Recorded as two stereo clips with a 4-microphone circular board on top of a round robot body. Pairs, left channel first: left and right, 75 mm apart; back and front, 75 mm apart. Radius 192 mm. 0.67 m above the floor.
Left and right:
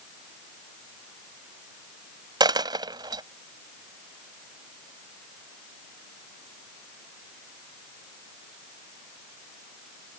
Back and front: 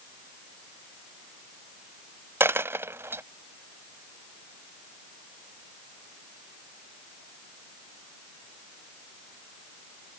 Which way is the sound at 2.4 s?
60° right.